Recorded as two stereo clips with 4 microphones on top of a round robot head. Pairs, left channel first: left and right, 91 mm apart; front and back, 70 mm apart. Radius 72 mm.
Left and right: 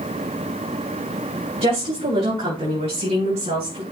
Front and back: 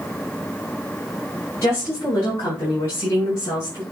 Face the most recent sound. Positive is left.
turn(degrees=-65)